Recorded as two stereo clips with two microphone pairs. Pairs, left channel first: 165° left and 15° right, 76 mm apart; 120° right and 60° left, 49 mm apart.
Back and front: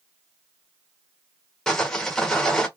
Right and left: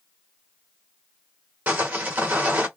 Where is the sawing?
85° left, 1.0 m.